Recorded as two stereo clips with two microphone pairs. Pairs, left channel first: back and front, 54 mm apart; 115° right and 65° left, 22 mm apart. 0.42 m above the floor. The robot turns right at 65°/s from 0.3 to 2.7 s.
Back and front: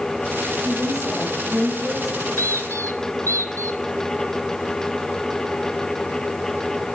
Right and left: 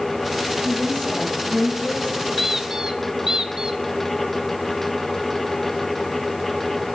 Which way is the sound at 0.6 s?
175° right.